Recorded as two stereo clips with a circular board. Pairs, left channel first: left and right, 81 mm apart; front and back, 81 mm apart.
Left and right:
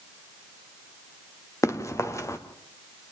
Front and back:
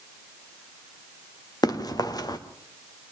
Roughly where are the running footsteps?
Ahead left.